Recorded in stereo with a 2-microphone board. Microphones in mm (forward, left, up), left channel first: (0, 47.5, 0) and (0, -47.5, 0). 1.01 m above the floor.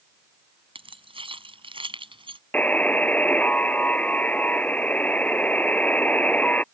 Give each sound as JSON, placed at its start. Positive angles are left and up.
{"t": 0.8, "sound": "keys jangling", "side_deg": -65}
{"t": 2.5, "sound": "a buzzer", "side_deg": 15}